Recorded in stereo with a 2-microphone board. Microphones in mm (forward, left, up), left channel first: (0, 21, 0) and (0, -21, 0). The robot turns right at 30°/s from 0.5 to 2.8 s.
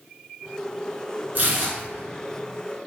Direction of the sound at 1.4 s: 50° right (ahead or behind).